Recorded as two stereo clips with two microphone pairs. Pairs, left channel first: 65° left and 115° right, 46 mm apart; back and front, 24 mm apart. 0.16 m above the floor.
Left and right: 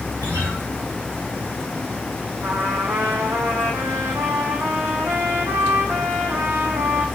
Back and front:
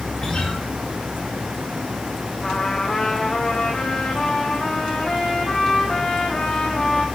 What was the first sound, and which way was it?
A guitar, 120° right.